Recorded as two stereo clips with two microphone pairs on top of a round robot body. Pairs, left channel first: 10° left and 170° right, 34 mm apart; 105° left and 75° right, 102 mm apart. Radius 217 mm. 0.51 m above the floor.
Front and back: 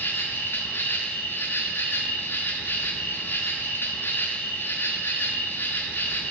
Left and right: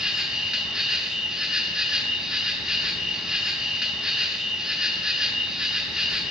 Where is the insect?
5° left, 1.2 m.